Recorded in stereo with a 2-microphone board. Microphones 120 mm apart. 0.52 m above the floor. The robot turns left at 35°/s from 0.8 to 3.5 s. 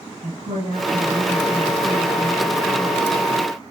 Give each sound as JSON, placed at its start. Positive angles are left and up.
{"t": 0.2, "sound": "a woman speaking", "azimuth_deg": -90, "distance_m": 7.0}